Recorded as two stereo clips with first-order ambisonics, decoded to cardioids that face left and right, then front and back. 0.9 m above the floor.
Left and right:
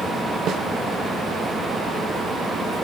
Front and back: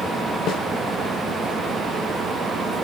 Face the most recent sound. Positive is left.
turn(degrees=-40)